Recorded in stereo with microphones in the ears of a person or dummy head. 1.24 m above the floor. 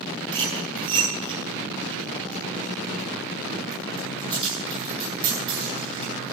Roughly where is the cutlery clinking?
Right.